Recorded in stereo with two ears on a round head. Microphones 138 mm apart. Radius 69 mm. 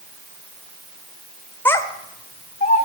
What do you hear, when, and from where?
1.6 s a child speaking: 15° left (ahead or behind), 1.1 m; by 2.9 s 45° left (ahead or behind), 2.5 m